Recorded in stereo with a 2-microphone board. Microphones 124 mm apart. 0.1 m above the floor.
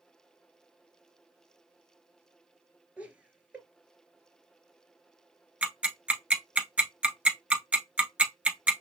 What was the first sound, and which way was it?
Laughter, 10° right (ahead or behind).